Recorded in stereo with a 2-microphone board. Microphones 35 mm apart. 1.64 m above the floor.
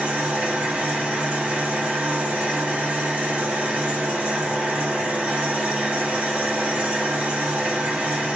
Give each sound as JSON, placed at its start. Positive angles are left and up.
{"t": 0.0, "sound": "an engine running", "side_deg": -55, "distance_m": 1.8}